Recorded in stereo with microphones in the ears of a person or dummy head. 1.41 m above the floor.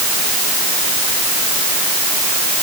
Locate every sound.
Only background noise.